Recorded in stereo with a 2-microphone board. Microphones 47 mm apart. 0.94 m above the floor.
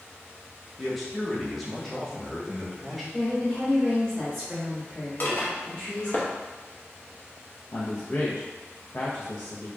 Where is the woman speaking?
5° left (ahead or behind), 1.3 m.